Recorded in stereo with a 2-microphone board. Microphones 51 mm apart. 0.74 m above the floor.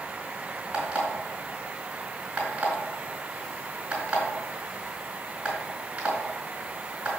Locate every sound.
0.7 s an alarm clock: 20° right (ahead or behind), 3.5 m